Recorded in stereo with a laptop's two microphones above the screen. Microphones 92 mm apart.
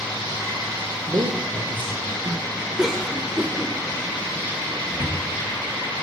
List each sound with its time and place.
1.1 s a man speaking: 50° right (ahead or behind), 0.5 m
2.8 s a cough: 5° right (ahead or behind), 0.5 m
4.9 s a cupboard door: 55° left (ahead or behind), 1.1 m